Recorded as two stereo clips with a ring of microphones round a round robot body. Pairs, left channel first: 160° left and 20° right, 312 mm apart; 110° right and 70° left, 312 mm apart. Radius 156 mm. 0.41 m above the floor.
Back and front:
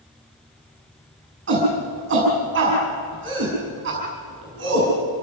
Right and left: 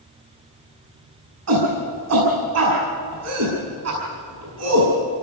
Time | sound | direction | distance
1.5 | a shout | 30° left | 5.5 m